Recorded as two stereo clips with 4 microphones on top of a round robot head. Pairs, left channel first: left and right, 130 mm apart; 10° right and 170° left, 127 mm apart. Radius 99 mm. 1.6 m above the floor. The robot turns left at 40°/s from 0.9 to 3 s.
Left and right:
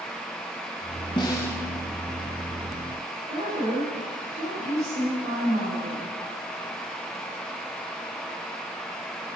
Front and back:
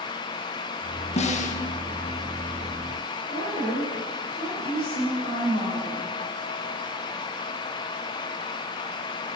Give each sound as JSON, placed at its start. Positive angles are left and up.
{"t": 1.2, "sound": "a snare drum", "azimuth_deg": 25, "distance_m": 1.5}
{"t": 3.3, "sound": "a woman speaking", "azimuth_deg": -35, "distance_m": 9.5}